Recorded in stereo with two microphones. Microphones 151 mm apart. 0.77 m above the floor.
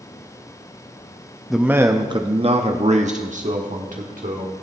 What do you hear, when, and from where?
1.5 s a man speaking: centre (ahead or behind), 0.5 m; by 4.5 s 60° right (ahead or behind), 1.8 m